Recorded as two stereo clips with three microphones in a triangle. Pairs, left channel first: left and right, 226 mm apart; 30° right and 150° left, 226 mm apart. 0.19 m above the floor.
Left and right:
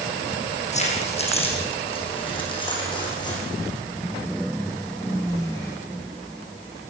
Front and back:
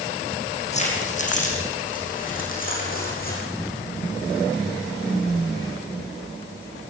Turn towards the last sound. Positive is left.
turn(degrees=15)